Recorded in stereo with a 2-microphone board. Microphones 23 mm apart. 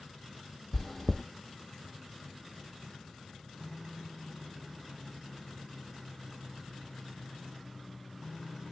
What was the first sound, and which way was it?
Chewing, 15° left (ahead or behind).